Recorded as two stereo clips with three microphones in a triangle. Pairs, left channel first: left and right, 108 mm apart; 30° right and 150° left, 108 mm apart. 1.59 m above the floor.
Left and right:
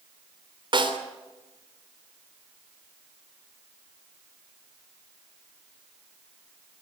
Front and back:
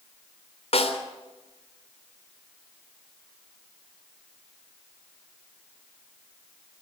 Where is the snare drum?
50° right, 3 m.